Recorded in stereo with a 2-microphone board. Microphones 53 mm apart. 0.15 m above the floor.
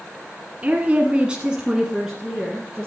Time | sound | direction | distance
0.6 | a woman speaking | 30° right (ahead or behind) | 1.5 m